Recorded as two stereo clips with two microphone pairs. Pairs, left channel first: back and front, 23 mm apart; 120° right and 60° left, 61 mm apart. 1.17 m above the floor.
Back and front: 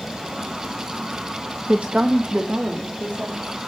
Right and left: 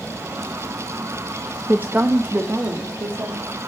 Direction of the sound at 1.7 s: 5° right.